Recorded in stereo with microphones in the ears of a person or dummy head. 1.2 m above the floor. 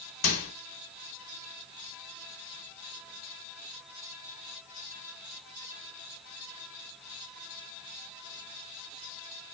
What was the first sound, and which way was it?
A microwave, 65° left (ahead or behind).